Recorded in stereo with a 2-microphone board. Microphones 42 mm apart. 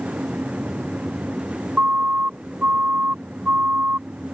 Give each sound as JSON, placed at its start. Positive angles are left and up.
{"t": 1.8, "sound": "a siren", "side_deg": -45}